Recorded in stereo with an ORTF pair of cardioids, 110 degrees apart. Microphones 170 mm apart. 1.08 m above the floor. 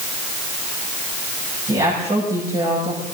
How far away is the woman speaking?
About 6.5 m.